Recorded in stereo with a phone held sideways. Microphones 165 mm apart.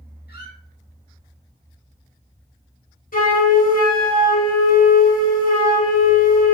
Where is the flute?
60° left (ahead or behind), 1.3 m.